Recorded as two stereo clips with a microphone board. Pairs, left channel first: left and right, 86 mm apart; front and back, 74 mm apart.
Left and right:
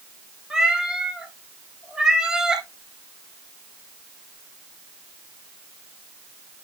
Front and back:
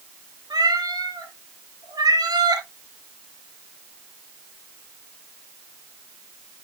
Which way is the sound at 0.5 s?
170° right.